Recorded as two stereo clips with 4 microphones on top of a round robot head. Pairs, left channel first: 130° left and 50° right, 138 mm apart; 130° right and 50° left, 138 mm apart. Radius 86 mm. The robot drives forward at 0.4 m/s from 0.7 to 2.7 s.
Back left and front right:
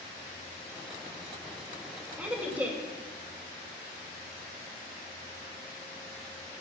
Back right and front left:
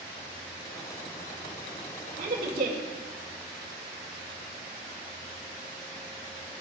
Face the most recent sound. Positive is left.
turn(degrees=30)